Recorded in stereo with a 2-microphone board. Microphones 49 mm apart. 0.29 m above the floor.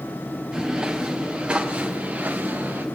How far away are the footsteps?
About 4 m.